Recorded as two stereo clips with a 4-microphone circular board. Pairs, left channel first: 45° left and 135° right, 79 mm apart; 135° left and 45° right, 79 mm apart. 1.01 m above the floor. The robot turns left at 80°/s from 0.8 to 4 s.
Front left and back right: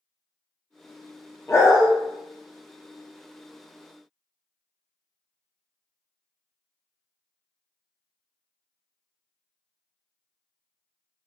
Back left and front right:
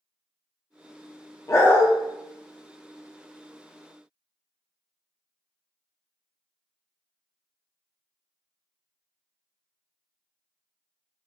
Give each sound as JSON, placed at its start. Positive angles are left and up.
{"t": 1.5, "sound": "a dog barking", "azimuth_deg": 95, "distance_m": 0.6}